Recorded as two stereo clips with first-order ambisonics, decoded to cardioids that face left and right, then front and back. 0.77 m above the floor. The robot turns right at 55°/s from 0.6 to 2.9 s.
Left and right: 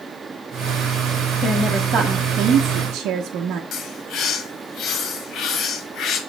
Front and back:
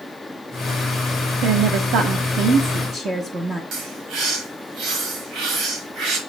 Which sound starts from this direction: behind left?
A bird, at 3.7 s.